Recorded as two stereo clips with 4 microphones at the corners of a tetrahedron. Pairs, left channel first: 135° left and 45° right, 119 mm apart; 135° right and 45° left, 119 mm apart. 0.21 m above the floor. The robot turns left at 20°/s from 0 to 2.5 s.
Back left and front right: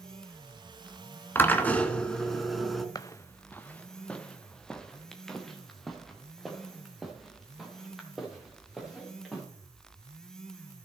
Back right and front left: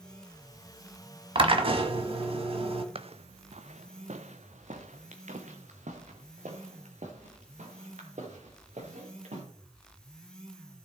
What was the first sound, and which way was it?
A drill, 70° left.